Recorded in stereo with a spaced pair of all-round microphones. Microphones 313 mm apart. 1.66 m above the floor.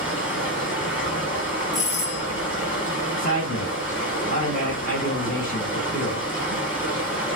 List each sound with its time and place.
0.0 s running water: 5° right (ahead or behind), 3 m
1.7 s a doorbell: 10° right (ahead or behind), 2.5 m
3.2 s a man speaking: 25° left (ahead or behind), 2.0 m